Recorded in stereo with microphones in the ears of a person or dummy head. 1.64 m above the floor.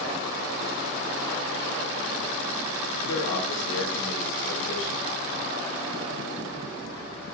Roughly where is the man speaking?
Left.